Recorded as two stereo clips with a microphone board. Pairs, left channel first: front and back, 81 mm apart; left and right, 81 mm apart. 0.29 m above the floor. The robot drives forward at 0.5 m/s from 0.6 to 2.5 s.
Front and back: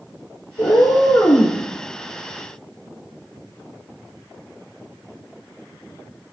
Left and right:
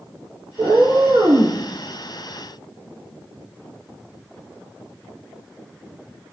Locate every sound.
0.6 s a cat meowing: 45° right, 1.0 m; by 1.6 s 75° right, 0.7 m